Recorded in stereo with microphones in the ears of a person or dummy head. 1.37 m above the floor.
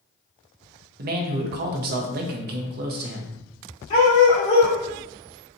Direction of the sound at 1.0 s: 50° right (ahead or behind).